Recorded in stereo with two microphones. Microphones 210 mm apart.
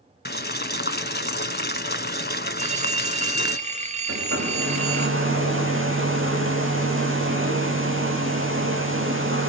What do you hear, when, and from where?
0.2 s boiling: 50° left (ahead or behind), 1.0 m
2.6 s a phone ringing: 35° right (ahead or behind), 1.7 m
4.1 s a hair dryer: 75° right (ahead or behind), 4.5 m